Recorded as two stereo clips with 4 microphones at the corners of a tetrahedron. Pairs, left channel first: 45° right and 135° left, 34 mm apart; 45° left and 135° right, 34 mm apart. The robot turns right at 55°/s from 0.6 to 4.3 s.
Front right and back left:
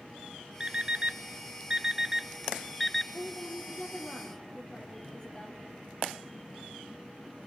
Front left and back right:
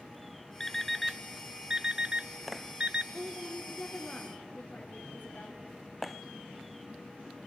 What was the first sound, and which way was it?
An alarm clock, 115° left.